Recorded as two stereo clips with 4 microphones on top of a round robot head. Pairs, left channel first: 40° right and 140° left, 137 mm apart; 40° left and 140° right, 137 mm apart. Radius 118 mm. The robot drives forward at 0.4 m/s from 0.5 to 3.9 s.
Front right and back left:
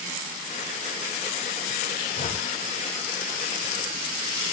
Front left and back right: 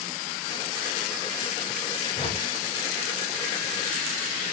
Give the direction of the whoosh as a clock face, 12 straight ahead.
12 o'clock.